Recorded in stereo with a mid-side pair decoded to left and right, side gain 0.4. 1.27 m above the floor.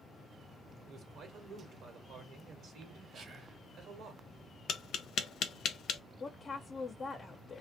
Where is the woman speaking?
40° left, 0.5 m.